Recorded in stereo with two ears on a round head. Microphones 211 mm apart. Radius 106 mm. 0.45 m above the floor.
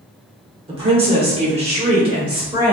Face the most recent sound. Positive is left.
turn(degrees=-20)  # may be behind; listen again after turning